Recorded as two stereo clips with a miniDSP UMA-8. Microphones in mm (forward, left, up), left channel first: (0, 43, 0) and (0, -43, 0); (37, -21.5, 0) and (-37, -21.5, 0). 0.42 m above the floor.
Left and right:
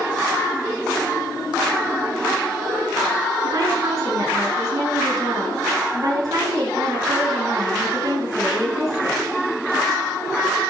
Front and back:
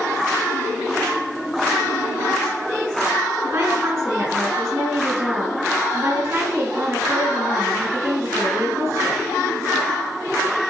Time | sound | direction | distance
3.4 | a woman speaking | 135° right | 5 m